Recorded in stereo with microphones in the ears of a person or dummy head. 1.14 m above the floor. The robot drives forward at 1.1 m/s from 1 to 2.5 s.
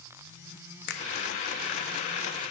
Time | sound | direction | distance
0.9 | a finger snap | 60° left (ahead or behind) | 1.0 m